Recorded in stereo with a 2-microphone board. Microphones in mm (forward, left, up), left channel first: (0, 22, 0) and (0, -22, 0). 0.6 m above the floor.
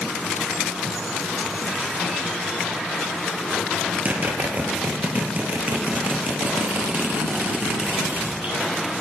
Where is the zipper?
40° right (ahead or behind), 3.5 m.